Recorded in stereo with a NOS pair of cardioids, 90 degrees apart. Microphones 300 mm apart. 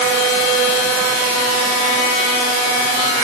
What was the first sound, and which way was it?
Only background noise.